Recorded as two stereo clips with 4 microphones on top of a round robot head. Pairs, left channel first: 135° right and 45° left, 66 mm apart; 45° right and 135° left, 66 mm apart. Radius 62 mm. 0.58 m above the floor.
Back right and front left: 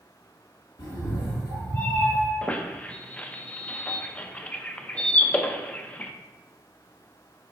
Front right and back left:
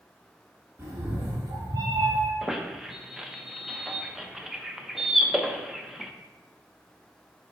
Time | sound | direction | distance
0.8 | a cat meowing | 165° right | 1.6 m
2.4 | a squeak | 150° right | 0.5 m